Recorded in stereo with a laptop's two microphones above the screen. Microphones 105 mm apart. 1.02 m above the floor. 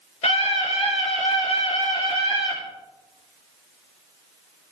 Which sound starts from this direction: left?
A scream, at 0.2 s.